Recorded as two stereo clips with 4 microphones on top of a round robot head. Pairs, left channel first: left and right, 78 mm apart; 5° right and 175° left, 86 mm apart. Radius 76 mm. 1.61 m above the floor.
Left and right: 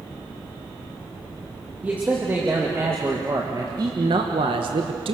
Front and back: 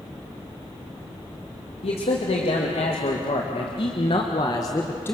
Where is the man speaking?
10° right, 2.5 m; by 5.2 s 75° right, 1.5 m.